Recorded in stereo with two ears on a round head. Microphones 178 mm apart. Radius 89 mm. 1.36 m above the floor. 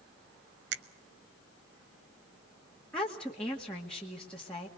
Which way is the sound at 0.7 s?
55° right (ahead or behind).